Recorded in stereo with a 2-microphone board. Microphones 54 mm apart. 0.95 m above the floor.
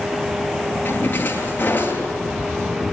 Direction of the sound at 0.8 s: 30° left (ahead or behind).